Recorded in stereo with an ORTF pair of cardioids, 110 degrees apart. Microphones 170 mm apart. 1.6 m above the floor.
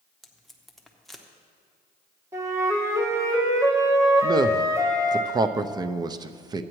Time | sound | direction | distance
0.2 | tape being pulled | straight ahead | 1.0 m
2.3 | a flute | 15° right | 1.7 m
4.2 | a man speaking | 25° right | 0.5 m